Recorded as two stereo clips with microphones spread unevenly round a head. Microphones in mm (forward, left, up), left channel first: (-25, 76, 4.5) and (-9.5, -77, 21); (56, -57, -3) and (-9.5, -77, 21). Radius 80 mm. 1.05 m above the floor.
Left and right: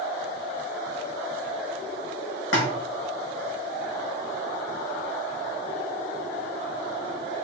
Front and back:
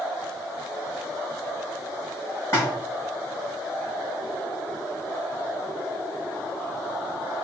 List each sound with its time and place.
2.5 s a splash: 95° left, 1.7 m